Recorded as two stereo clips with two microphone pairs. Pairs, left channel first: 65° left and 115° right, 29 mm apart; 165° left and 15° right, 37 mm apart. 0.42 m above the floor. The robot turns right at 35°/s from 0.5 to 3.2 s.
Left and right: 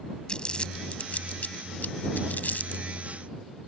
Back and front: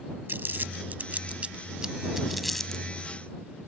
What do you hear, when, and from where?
0.3 s crumpling: 5° left; by 2.9 s 85° left